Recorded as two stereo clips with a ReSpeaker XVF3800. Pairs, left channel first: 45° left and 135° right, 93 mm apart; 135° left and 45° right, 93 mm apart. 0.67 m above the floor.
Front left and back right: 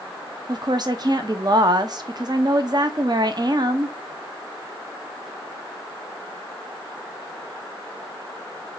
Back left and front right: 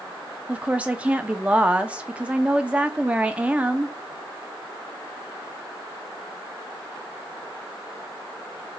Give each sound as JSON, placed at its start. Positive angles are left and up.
{"t": 0.5, "sound": "a woman speaking", "azimuth_deg": -115, "distance_m": 0.7}